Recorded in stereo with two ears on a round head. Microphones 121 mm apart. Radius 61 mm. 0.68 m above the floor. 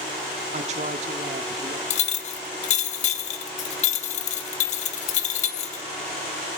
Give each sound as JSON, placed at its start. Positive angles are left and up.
{"t": 0.5, "sound": "a woman speaking", "side_deg": -60, "distance_m": 1.2}
{"t": 1.9, "sound": "a clink", "side_deg": 60, "distance_m": 0.9}